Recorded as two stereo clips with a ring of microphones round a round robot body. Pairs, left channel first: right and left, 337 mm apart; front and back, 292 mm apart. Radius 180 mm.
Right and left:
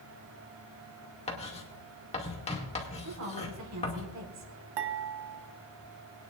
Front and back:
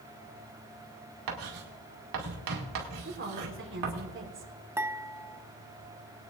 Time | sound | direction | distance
1.3 | writing | 165° right | 2 m
3.0 | a woman speaking | 135° left | 4 m
4.8 | dishes clattering | 100° left | 1.2 m